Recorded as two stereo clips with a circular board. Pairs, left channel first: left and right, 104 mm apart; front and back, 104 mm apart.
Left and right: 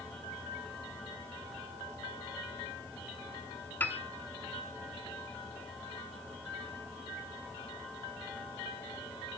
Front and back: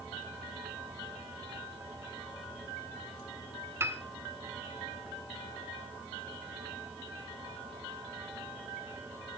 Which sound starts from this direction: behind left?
A piano, at 3.8 s.